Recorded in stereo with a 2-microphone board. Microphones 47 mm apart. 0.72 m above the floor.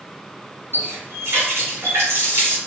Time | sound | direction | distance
0.7 | a running tap | 75° right (ahead or behind) | 1.5 m